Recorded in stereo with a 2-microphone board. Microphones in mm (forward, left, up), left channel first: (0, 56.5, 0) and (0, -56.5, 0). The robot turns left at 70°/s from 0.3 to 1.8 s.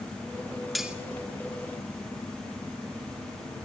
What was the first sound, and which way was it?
Cutlery clinking, centre (ahead or behind).